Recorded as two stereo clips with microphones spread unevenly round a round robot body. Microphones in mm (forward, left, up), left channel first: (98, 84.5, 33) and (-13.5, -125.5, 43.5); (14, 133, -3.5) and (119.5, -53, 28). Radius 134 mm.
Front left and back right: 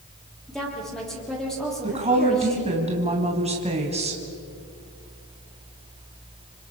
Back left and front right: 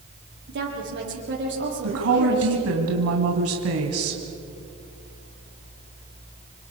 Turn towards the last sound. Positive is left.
turn(degrees=-55)